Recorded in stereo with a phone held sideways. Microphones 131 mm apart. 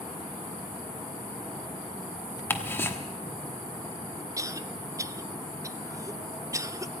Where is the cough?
25° right (ahead or behind), 0.5 m.